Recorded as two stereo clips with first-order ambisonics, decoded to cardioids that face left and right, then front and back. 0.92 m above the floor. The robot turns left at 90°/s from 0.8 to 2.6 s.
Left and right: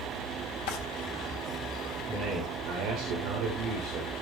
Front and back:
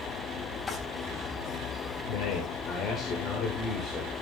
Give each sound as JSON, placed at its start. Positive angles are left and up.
{"t": 0.7, "sound": "a drawer", "azimuth_deg": 80, "distance_m": 4.0}
{"t": 2.1, "sound": "a man speaking", "azimuth_deg": -10, "distance_m": 3.5}